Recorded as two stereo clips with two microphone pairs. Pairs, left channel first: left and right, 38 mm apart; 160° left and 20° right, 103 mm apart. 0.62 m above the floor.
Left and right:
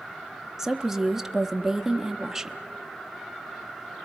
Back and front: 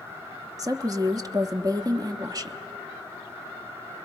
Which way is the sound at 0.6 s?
10° right.